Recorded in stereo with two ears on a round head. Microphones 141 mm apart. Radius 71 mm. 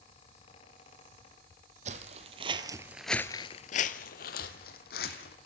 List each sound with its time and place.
1.9 s footsteps: 45° right (ahead or behind), 1.6 m; by 5.4 s 70° left (ahead or behind), 2.5 m